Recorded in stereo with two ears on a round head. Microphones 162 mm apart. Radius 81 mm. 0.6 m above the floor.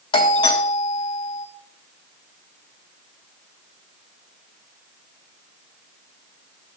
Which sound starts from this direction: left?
A doorbell, at 0.1 s.